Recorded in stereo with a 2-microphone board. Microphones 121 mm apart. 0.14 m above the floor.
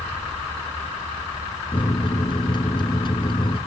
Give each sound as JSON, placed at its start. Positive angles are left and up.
{"t": 1.7, "sound": "a microwave", "side_deg": 40, "distance_m": 1.2}